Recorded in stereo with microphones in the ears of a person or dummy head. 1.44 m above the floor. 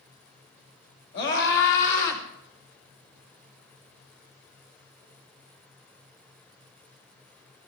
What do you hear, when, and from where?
1.1 s a scream: 65° left (ahead or behind), 6 m; by 2.2 s 70° left (ahead or behind), 4.5 m